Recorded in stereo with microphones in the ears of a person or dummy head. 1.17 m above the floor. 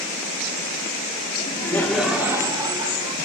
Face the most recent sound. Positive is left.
turn(degrees=-30)  # may be behind; listen again after turning